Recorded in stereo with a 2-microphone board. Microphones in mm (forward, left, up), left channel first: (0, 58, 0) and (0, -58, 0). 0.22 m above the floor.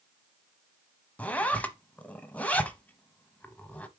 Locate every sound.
1.2 s a zipper: 15° left (ahead or behind), 0.8 m